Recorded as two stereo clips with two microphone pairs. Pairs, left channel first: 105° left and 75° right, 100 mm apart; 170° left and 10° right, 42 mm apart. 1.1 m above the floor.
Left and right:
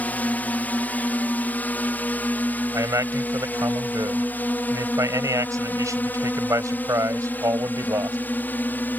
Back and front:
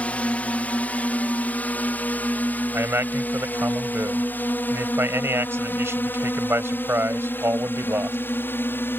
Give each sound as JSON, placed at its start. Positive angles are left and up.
{"t": 0.0, "sound": "a drone", "azimuth_deg": 165}
{"t": 2.7, "sound": "a man speaking", "azimuth_deg": -20}